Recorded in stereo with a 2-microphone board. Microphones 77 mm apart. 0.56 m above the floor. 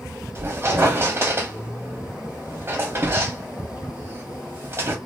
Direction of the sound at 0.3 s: 35° right (ahead or behind).